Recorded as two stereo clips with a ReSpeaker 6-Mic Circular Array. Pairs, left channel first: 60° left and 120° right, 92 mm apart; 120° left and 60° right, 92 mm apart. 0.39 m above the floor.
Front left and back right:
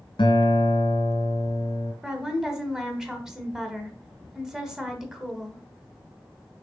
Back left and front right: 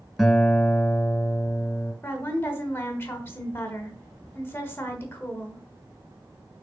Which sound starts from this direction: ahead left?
A guitar, at 0.2 s.